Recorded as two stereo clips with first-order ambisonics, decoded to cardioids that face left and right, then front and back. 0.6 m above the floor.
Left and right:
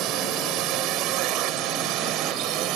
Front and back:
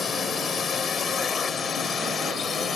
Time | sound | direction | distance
0.0 | a drone | 65° right | ?